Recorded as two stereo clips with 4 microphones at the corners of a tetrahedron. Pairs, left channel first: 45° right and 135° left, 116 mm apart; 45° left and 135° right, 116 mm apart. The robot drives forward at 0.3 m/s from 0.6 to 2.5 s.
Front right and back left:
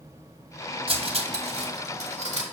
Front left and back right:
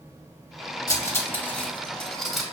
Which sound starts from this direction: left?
Cutlery clinking, at 0.9 s.